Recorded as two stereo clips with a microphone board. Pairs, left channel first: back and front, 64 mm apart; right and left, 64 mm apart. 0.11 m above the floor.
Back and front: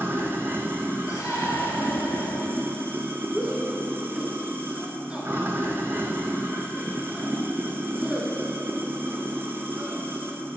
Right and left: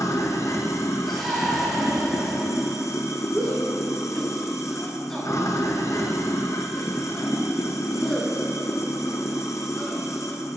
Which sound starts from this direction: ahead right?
Running water, at 0.0 s.